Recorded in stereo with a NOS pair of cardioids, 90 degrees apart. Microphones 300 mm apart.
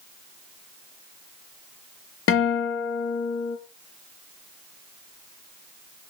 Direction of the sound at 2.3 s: 45° left.